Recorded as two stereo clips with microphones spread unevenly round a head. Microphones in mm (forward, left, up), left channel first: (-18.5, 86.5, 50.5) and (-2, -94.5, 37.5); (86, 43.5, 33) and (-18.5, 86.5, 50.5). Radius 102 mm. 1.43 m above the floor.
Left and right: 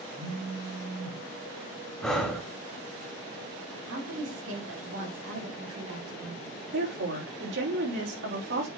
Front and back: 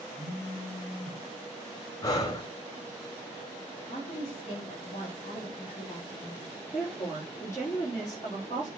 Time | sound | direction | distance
0.1 | a phone buzzing | 85° right | 4.5 m
2.0 | breathing | 20° left | 1.3 m
3.9 | a woman speaking | 80° right | 3.5 m
6.7 | a woman speaking | 100° right | 3.5 m